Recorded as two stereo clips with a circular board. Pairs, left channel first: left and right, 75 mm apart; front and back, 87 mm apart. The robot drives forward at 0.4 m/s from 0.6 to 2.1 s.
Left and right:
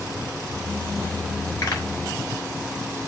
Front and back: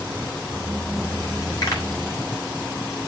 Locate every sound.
1.6 s a pop: 50° left, 5.5 m